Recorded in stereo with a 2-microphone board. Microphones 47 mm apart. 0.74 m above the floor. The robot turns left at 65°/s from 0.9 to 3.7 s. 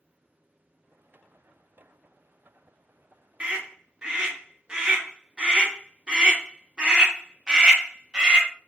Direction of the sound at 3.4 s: 30° right (ahead or behind).